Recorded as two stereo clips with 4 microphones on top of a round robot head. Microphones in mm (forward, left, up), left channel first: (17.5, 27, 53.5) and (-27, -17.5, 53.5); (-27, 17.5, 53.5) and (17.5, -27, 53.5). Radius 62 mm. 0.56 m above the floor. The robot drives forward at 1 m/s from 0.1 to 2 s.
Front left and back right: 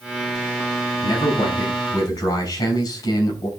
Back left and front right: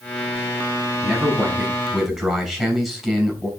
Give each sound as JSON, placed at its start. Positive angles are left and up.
{"t": 1.0, "sound": "a man speaking", "azimuth_deg": 35, "distance_m": 5.5}